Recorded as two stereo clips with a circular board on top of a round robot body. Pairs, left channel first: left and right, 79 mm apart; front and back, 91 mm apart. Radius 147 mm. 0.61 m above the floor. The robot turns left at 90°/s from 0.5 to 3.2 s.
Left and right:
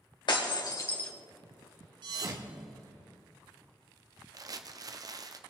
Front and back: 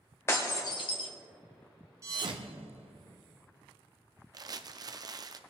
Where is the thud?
120° right, 0.6 m; by 3.1 s 150° left, 0.6 m.